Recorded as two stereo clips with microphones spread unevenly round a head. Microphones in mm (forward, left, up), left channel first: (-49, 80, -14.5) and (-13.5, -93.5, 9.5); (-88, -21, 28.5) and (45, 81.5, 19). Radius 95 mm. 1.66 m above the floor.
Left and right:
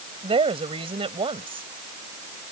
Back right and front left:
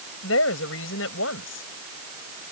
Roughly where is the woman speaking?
Behind right.